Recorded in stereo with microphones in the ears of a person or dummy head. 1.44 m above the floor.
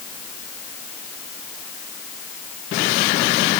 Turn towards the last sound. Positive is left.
No sound to turn to.